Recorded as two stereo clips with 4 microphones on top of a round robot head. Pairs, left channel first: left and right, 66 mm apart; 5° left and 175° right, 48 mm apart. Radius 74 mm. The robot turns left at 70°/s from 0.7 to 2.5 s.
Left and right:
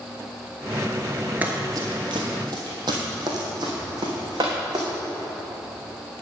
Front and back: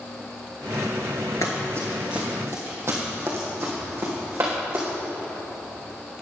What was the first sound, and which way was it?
Running footsteps, 30° right.